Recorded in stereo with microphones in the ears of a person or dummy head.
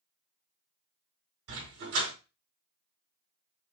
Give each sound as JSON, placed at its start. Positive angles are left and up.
{"t": 1.5, "sound": "a dog barking", "side_deg": -75, "distance_m": 4.0}